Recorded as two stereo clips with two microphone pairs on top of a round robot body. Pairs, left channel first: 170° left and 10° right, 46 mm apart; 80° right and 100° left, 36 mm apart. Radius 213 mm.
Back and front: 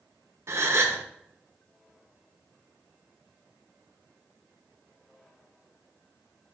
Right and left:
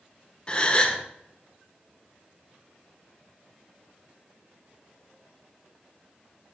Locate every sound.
0.5 s a gasp: 25° right, 1.2 m